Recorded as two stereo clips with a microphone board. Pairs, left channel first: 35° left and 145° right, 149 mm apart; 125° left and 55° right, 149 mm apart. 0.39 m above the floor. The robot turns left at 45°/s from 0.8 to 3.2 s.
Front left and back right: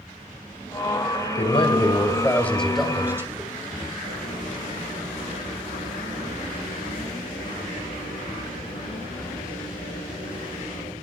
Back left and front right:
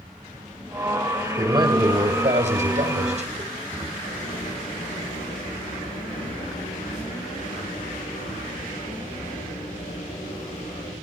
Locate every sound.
1.4 s a man speaking: 5° left, 2 m; by 3.9 s 75° right, 2 m
4.0 s writing: 90° left, 10 m